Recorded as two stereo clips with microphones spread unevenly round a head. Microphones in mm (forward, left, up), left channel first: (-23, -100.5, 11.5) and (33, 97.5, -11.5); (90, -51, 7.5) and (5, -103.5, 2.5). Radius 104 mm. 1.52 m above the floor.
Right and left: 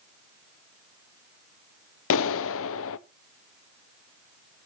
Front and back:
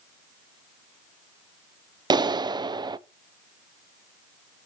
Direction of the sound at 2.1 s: 100° right.